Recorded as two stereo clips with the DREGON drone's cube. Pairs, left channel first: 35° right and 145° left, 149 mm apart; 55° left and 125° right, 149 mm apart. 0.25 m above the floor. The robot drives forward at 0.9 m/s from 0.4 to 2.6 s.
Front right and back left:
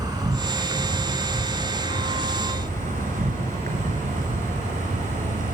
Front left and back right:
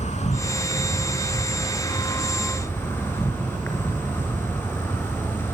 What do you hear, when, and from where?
0.0 s an insect: 85° left, 2.5 m; by 5.5 s 130° left, 3 m